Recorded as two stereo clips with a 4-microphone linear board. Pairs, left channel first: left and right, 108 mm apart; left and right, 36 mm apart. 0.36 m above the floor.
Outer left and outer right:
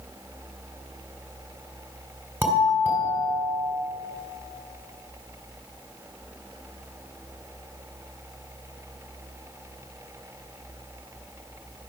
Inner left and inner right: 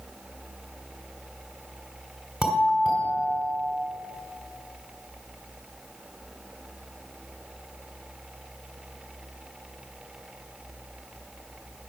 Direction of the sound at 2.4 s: 20° right (ahead or behind).